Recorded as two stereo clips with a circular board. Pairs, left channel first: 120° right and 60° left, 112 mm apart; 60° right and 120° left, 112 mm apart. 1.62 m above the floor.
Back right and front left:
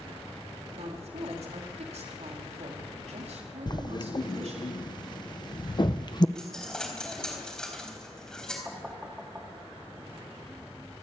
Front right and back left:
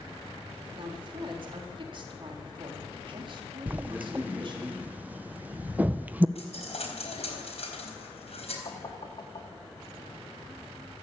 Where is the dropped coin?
35° right, 4 m.